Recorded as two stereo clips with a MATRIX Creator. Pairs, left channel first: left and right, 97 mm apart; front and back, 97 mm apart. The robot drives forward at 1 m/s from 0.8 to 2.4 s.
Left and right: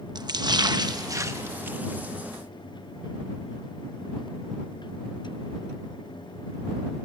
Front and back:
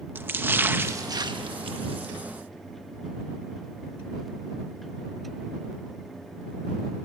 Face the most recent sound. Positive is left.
turn(degrees=-165)